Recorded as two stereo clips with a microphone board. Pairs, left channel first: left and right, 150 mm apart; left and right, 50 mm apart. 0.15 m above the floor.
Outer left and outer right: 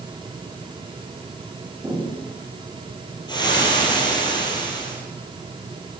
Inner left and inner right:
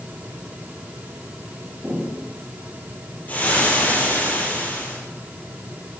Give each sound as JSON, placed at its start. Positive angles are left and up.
{"t": 1.8, "sound": "footsteps", "side_deg": -10, "distance_m": 5.5}
{"t": 3.3, "sound": "frying", "side_deg": 30, "distance_m": 3.0}